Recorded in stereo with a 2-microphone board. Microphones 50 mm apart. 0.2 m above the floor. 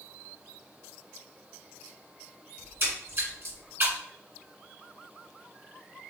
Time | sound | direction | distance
2.6 | a splash | 50° right (ahead or behind) | 2.0 m